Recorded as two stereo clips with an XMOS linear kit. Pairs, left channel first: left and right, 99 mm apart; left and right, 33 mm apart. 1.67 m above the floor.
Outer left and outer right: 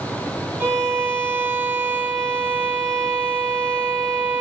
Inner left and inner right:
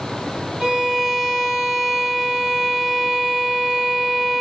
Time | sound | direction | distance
0.6 | a violin | 25° right (ahead or behind) | 1.0 m